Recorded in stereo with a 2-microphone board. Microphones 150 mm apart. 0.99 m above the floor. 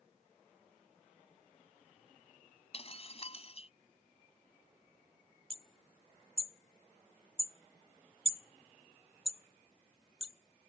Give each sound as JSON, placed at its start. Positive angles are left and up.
{"t": 2.7, "sound": "breaking glass", "side_deg": 40}
{"t": 5.5, "sound": "hammering", "side_deg": -40}